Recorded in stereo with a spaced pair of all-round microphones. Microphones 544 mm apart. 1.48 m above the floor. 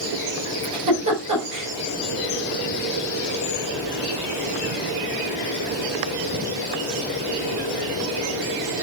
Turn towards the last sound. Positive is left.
turn(degrees=-30)  # may be behind; listen again after turning